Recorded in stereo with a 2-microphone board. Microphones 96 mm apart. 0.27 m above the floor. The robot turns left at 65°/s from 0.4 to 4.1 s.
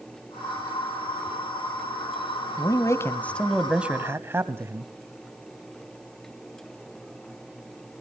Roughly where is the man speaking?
Ahead left.